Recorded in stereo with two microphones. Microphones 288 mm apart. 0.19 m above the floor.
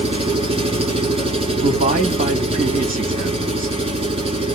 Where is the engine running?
20° right (ahead or behind), 1.1 m.